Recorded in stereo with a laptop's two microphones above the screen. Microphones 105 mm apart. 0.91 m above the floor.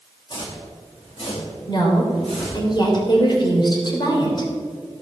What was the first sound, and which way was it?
Footsteps, 50° left (ahead or behind).